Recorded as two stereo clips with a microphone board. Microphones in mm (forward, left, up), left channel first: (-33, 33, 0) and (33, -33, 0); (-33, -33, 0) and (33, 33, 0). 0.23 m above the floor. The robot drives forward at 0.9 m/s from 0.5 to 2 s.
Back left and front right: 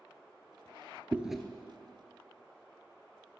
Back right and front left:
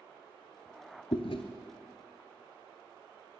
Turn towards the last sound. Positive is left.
turn(degrees=-155)